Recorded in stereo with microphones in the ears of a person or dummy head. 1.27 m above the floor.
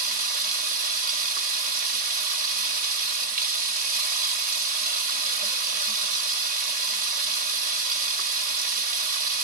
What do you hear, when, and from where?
0.0 s running water: 50° right (ahead or behind), 2.0 m